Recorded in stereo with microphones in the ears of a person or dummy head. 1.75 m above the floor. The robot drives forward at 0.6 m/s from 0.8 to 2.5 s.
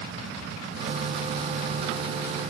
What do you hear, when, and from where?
Only background noise.